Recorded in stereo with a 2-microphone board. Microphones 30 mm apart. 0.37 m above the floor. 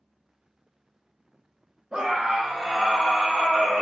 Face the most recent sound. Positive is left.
turn(degrees=25)  # may be behind; listen again after turning